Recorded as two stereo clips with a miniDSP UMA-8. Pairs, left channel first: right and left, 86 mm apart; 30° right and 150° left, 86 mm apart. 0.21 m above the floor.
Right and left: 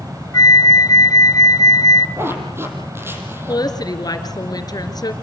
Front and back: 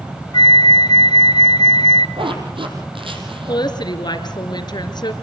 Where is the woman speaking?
55° right, 3 m.